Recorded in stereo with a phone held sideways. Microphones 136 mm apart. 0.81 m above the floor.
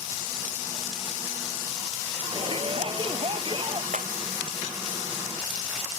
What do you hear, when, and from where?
2.3 s a shout: 40° right (ahead or behind)
3.9 s breaking glass: 70° right (ahead or behind)